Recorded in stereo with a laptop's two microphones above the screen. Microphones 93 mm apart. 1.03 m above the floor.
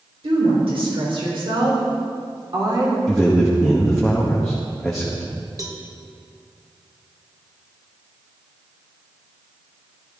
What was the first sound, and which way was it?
A woman speaking, 80° right.